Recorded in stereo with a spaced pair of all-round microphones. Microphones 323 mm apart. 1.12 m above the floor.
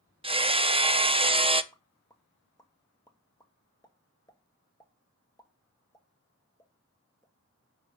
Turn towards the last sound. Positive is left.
turn(degrees=10)  # may be behind; listen again after turning